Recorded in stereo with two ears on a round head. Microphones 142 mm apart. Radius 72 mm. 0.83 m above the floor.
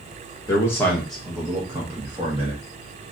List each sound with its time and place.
0.5 s a man speaking: 20° left (ahead or behind), 1.1 m; by 3.1 s 45° right (ahead or behind), 1.4 m